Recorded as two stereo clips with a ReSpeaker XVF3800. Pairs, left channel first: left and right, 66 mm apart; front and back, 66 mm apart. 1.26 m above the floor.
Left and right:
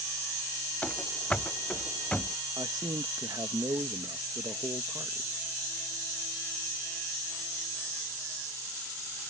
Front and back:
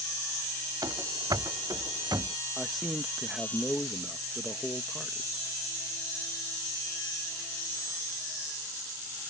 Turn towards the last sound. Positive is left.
turn(degrees=-95)